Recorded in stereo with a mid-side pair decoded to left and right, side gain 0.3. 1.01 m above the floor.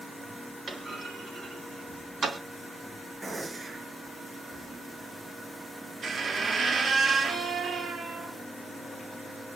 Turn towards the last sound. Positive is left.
turn(degrees=-65)